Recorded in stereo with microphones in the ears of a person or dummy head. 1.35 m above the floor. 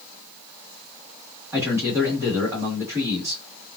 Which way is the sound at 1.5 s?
20° right (ahead or behind).